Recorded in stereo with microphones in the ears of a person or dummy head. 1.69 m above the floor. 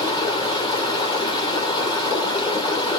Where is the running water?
20° left (ahead or behind), 1.8 m.